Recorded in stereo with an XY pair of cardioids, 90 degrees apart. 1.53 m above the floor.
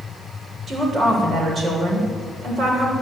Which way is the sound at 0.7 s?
50° right.